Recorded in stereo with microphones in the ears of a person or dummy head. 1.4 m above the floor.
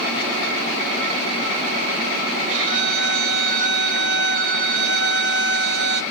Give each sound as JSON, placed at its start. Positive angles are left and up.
{"t": 2.5, "sound": "a violin", "side_deg": -65, "distance_m": 1.9}